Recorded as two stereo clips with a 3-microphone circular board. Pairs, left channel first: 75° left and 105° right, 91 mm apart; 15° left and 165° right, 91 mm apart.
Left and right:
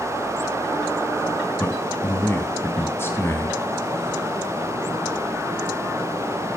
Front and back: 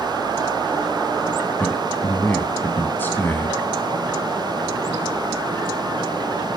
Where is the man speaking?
55° left, 1.4 m.